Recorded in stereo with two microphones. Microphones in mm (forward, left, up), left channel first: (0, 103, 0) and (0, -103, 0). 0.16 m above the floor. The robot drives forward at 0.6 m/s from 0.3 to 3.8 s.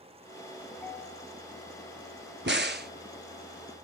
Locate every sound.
0.7 s a ringtone: 10° left (ahead or behind), 0.9 m
2.5 s a crack: 65° right (ahead or behind), 0.8 m; by 2.9 s 55° right (ahead or behind), 0.9 m